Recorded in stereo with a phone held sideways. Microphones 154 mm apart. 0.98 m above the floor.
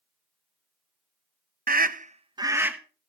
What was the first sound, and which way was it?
A scream, 65° right (ahead or behind).